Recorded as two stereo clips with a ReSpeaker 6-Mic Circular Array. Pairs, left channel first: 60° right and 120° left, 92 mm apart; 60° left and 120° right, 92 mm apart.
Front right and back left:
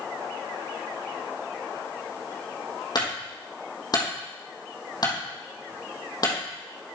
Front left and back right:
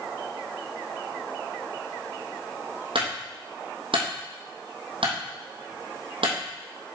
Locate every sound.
3.0 s a clunk: 105° right, 4 m